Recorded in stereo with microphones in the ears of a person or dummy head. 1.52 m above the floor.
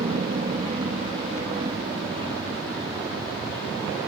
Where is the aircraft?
30° right (ahead or behind); by 4.1 s 20° right (ahead or behind).